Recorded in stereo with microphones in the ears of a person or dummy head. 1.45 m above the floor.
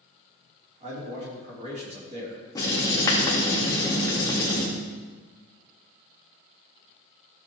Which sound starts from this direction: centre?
Writing, at 2.5 s.